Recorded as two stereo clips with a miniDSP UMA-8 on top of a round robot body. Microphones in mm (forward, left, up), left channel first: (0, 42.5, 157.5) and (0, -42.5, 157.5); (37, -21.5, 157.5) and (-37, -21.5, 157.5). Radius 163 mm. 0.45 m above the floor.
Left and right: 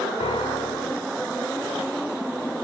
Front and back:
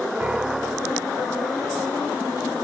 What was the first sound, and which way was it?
A piano, 105° left.